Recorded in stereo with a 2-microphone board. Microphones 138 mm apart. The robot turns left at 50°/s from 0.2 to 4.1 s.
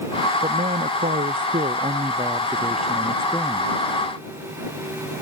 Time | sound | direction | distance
0.4 | a man speaking | 55° right | ?